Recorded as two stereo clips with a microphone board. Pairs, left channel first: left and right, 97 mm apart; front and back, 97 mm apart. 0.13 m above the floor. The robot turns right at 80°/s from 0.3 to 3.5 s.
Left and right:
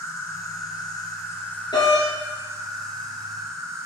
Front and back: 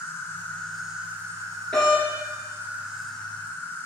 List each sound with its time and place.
0.0 s an insect: 50° left, 1.2 m; by 3.9 s 55° right, 1.2 m
1.7 s a doorbell: 80° left, 3 m; by 3.9 s 140° right, 3 m